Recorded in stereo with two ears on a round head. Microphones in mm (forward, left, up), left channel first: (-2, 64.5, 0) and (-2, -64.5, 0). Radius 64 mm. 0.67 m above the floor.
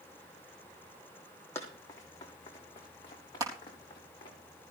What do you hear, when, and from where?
1.6 s running footsteps: 20° left (ahead or behind), 2.5 m; by 4.3 s 35° left (ahead or behind), 5.5 m
3.4 s crushing: 25° right (ahead or behind), 3.5 m